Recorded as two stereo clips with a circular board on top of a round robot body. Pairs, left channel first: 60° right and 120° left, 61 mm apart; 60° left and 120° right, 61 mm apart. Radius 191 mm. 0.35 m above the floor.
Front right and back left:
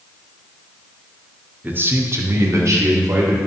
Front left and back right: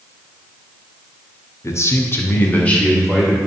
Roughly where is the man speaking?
Left.